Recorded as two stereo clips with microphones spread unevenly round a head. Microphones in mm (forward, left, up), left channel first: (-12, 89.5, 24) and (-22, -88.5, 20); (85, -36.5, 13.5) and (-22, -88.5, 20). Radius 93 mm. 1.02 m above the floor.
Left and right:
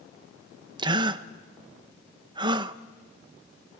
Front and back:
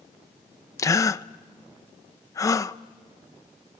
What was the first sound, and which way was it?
A gasp, 30° right.